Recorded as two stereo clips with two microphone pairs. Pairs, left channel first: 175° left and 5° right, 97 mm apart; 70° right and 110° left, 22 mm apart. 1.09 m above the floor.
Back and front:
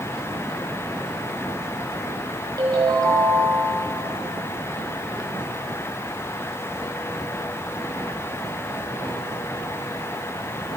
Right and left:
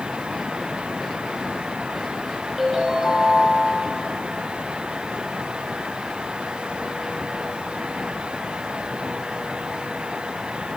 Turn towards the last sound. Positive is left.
turn(degrees=40)